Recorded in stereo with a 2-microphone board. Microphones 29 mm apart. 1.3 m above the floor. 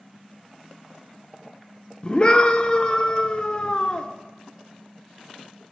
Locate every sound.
2.0 s a scream: 35° left (ahead or behind), 0.6 m